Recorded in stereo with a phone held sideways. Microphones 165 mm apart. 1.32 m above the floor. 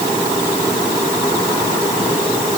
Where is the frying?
I don't hear frying.